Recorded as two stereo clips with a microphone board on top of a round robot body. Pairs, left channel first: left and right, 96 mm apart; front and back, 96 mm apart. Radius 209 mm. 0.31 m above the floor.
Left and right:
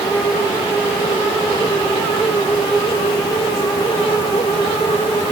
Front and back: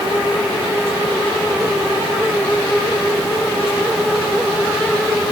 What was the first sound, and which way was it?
Only background noise.